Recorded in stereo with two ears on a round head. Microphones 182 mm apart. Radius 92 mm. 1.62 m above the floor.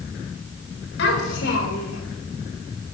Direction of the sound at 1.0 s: 60° left (ahead or behind).